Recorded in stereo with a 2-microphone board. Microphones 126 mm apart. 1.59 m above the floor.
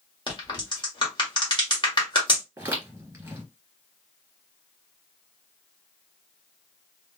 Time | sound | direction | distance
0.3 | a crack | 35° left (ahead or behind) | 1.5 m
2.6 | footsteps | 20° right (ahead or behind) | 1.6 m